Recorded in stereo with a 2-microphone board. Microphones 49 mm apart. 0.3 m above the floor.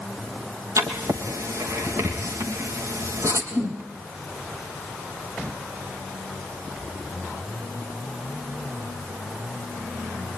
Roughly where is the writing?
Right.